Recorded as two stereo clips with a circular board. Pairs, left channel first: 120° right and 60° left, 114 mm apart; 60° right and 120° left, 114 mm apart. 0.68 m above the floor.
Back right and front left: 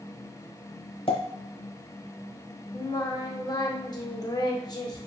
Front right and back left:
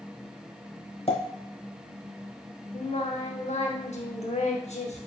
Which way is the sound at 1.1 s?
90° right.